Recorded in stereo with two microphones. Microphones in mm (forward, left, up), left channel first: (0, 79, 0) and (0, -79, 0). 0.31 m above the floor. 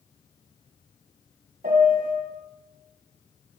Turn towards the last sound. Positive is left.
turn(degrees=-60)  # may be behind; listen again after turning